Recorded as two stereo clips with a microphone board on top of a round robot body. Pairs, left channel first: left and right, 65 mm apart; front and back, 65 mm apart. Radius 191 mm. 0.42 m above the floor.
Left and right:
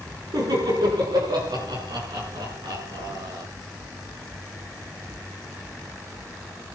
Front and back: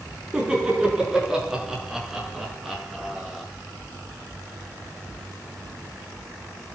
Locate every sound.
0.3 s laughter: 100° right, 8 m; by 3.5 s 90° right, 9 m